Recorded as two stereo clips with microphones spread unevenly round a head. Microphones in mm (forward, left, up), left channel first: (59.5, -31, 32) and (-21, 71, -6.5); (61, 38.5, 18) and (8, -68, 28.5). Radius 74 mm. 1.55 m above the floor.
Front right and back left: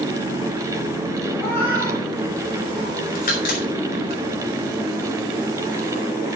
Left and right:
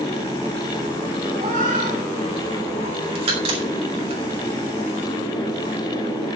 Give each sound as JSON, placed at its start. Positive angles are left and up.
{"t": 1.4, "sound": "a cat meowing", "azimuth_deg": -125, "distance_m": 9.5}
{"t": 3.1, "sound": "a crack", "azimuth_deg": -85, "distance_m": 5.5}